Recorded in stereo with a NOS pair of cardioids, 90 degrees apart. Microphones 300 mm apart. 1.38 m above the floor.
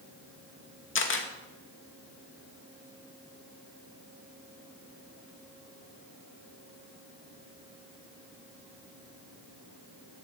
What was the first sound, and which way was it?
A camera shutter, 40° left.